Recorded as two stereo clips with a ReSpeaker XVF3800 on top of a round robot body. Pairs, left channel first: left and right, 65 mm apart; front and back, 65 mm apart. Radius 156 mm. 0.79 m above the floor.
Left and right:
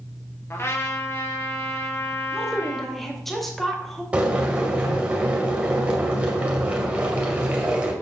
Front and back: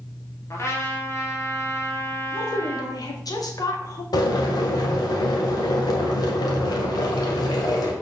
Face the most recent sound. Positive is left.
turn(degrees=-20)